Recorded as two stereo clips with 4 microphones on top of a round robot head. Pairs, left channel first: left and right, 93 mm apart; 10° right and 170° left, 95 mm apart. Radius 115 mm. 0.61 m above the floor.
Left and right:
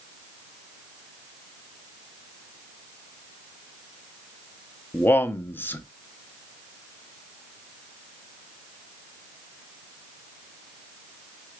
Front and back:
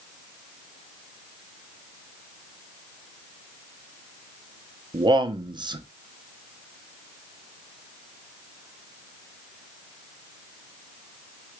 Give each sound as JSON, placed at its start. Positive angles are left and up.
{"t": 4.9, "sound": "a man speaking", "azimuth_deg": 155, "distance_m": 0.8}